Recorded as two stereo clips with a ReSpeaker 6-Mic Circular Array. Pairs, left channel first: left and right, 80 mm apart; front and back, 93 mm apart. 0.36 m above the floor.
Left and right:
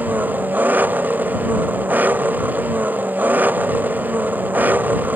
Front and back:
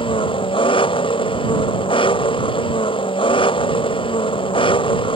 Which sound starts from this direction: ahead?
An engine running, at 0.0 s.